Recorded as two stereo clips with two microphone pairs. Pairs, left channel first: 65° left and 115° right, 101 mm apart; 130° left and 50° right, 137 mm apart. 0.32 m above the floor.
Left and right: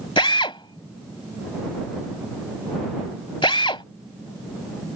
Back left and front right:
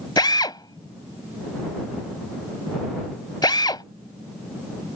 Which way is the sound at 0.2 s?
75° left.